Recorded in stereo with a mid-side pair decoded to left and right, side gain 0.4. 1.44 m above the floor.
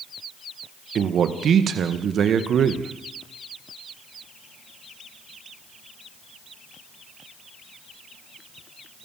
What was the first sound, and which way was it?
A man speaking, 65° right.